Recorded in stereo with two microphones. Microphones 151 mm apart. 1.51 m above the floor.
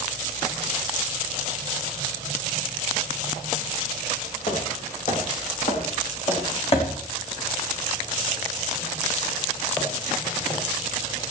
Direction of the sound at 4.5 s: 55° left (ahead or behind).